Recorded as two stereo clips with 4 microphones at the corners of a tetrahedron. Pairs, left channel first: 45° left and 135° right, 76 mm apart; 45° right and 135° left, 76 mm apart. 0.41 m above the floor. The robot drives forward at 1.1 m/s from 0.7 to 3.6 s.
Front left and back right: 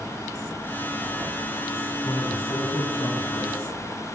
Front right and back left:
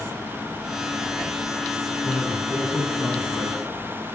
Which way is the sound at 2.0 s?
20° left.